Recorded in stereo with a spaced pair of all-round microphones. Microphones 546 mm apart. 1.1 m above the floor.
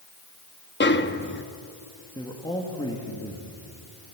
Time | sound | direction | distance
0.8 | a snare drum | 20° left (ahead or behind) | 0.8 m
2.1 | a man speaking | 10° left (ahead or behind) | 2 m